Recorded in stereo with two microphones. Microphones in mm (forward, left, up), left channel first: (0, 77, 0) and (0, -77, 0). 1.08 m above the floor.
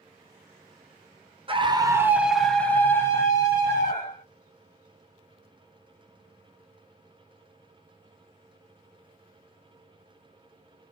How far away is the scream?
About 0.6 m.